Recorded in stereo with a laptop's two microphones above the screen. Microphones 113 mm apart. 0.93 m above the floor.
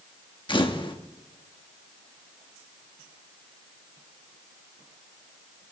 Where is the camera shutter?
45° left (ahead or behind), 1.1 m.